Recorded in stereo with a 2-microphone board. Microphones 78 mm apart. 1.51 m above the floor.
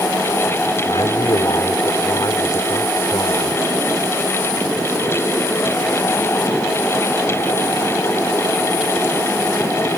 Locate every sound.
0.9 s a man speaking: 65° left (ahead or behind); by 3.6 s 50° left (ahead or behind)